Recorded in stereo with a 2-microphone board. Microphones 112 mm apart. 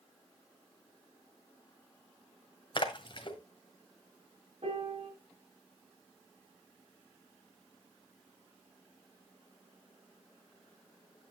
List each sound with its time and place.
2.8 s a splash: 45° left (ahead or behind), 1.8 m
4.6 s a piano: 60° right (ahead or behind), 5.5 m